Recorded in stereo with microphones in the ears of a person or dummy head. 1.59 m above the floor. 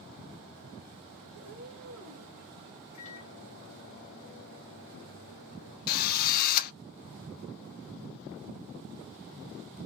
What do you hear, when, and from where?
1.3 s a cat meowing: 30° right (ahead or behind), 1.8 m
2.9 s a microwave: 35° left (ahead or behind), 1.1 m
5.9 s a drill: 50° left (ahead or behind), 0.5 m